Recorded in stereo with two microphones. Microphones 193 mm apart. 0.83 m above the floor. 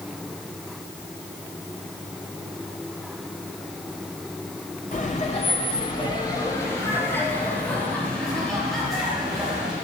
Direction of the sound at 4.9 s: 45° left (ahead or behind).